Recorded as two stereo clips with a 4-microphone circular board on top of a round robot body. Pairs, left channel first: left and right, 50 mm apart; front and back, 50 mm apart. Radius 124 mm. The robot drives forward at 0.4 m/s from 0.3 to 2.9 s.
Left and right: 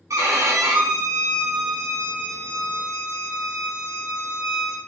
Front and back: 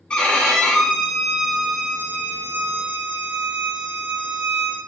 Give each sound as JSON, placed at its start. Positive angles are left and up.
{"t": 0.1, "sound": "a violin", "azimuth_deg": -70, "distance_m": 0.8}